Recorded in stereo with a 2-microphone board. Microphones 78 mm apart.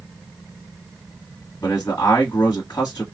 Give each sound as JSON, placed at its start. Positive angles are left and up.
{"t": 1.6, "sound": "a man speaking", "side_deg": 50, "distance_m": 1.5}